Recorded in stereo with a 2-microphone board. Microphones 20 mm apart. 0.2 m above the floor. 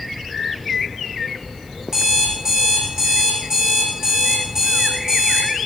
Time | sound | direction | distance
1.9 | an alarm clock | 30° right (ahead or behind) | 5.5 m